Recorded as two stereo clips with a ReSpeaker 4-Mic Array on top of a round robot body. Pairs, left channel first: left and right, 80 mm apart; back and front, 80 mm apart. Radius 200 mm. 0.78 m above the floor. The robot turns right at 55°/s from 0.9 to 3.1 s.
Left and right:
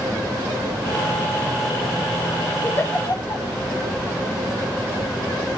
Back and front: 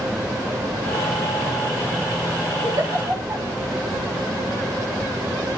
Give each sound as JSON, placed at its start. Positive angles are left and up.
{"t": 2.6, "sound": "a giggle", "azimuth_deg": 25, "distance_m": 2.0}